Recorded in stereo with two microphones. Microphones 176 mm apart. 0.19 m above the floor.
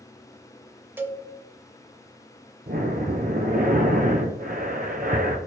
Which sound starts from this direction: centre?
A cowbell, at 1.0 s.